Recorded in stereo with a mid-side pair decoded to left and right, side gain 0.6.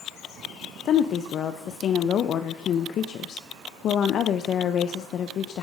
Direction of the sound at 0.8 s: 50° left.